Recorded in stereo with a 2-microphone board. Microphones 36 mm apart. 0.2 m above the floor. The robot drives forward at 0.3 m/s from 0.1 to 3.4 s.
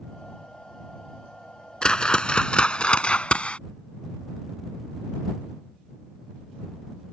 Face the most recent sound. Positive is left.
turn(degrees=35)  # may be behind; listen again after turning